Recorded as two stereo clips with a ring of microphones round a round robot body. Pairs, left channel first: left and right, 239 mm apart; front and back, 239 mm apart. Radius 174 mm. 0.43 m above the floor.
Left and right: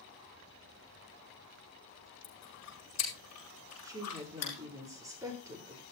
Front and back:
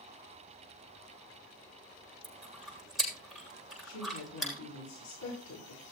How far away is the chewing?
About 8 m.